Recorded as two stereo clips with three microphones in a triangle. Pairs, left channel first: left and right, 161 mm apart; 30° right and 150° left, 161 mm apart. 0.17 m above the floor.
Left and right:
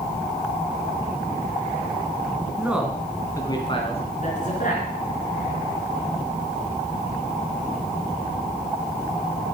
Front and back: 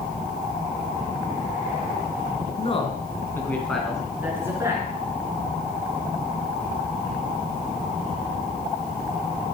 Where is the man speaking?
15° right, 2 m; by 4.9 s 85° left, 3 m.